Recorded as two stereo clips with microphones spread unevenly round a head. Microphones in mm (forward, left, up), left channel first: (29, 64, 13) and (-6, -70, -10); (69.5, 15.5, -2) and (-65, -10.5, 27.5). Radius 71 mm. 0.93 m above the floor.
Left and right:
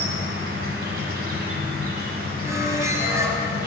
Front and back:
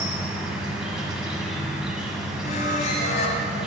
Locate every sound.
0.0 s an insect: 90° right, 1.4 m
2.4 s a squeak: 30° right, 1.3 m